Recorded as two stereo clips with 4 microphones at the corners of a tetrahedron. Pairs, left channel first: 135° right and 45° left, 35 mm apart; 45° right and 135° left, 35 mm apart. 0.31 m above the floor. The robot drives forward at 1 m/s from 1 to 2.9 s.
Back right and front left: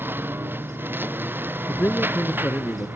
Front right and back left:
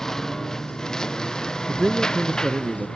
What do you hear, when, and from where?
0.0 s a lawn mower: 35° left; by 3.0 s 25° left
1.7 s a man speaking: 160° right; by 2.9 s 165° right